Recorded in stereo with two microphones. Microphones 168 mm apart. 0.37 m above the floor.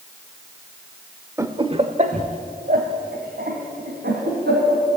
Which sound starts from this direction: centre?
Laughter, at 1.4 s.